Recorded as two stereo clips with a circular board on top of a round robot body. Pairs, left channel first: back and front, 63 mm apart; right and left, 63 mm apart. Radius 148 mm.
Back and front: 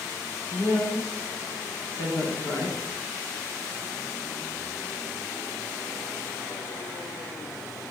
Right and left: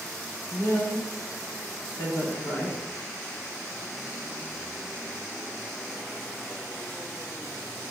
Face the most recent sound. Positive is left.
turn(degrees=-145)